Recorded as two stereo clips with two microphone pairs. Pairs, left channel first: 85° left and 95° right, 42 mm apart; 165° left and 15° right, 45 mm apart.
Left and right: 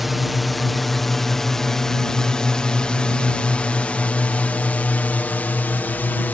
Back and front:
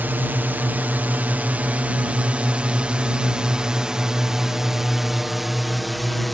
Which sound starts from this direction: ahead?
A drone, at 0.0 s.